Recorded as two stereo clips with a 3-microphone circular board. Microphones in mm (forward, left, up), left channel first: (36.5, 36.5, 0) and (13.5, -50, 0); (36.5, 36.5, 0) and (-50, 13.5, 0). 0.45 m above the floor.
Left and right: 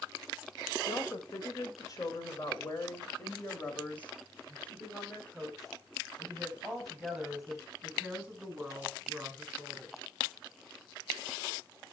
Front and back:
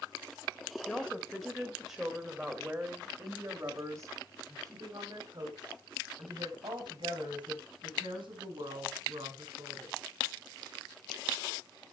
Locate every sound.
0.9 s a woman speaking: 90° left, 2 m; by 9.9 s straight behind, 5 m